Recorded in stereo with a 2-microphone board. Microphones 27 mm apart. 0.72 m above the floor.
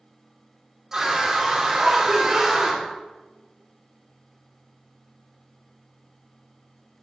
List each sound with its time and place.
0.9 s a scream: 15° right (ahead or behind), 2.5 m